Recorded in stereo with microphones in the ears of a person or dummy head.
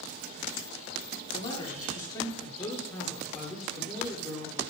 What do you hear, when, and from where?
1.3 s a man speaking: 30° left (ahead or behind), 2.0 m; by 4.6 s 10° right (ahead or behind), 3 m